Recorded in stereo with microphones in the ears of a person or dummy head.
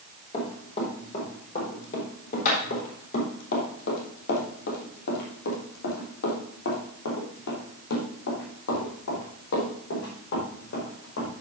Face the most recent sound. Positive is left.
turn(degrees=55)  # may be behind; listen again after turning